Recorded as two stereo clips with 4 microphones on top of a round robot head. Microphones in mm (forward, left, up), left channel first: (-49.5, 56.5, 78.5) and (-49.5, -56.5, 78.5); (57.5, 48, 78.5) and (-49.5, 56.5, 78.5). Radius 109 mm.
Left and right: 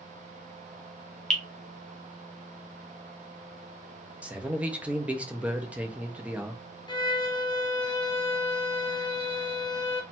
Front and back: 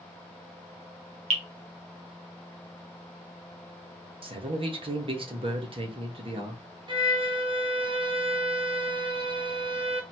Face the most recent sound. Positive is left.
turn(degrees=135)